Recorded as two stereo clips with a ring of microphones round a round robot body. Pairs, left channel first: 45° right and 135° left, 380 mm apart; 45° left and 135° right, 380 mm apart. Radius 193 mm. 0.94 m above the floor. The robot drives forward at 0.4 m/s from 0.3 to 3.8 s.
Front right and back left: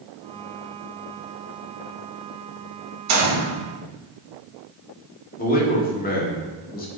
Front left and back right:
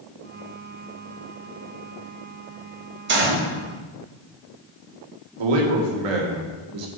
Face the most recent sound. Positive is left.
turn(degrees=-115)